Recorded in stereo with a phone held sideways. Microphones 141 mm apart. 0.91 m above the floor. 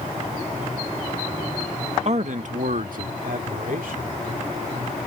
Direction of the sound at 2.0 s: 50° right (ahead or behind).